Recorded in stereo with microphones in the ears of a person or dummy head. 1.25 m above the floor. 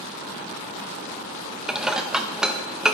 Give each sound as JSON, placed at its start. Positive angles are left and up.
{"t": 1.7, "sound": "dishes clattering", "side_deg": 0, "distance_m": 0.7}